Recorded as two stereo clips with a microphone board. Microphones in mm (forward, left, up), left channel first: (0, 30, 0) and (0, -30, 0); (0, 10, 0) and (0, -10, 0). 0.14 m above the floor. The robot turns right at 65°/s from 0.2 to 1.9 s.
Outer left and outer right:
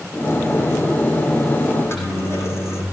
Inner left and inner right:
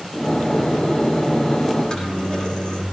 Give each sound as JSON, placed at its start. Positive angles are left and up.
{"t": 1.7, "sound": "a microwave", "side_deg": 55, "distance_m": 6.5}